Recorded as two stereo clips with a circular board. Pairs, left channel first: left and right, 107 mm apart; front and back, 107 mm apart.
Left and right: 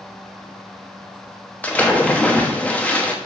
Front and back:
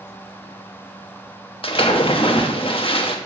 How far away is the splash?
About 1.0 m.